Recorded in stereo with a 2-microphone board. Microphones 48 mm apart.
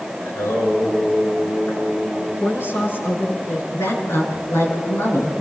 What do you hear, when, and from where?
0.2 s singing: 80° left, 7.5 m
2.4 s a woman speaking: 50° left (ahead or behind), 7.5 m
3.7 s a woman speaking: 80° left, 7.5 m